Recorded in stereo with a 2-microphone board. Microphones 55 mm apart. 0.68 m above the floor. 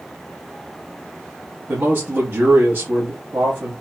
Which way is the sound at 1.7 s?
40° right (ahead or behind).